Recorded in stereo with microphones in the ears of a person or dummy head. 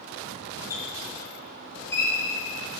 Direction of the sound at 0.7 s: 15° left (ahead or behind).